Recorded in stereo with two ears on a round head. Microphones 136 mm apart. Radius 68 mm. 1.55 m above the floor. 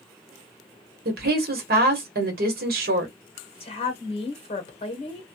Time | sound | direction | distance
1.1 | a woman speaking | 70° right (ahead or behind) | 1.1 m
3.6 | a woman speaking | 40° left (ahead or behind) | 1.0 m